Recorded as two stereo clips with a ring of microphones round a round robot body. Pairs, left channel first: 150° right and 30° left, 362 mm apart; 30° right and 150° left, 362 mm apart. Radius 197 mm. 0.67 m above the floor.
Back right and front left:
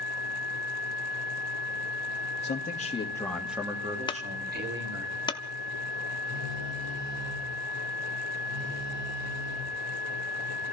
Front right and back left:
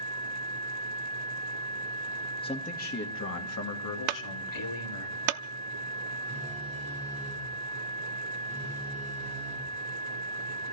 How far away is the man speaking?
About 1.5 m.